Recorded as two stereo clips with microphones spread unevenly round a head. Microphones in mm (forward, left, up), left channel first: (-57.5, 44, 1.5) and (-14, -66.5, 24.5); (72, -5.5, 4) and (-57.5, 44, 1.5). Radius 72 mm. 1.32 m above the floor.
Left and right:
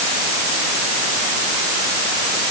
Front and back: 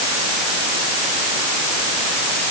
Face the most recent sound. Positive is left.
No sound to turn to.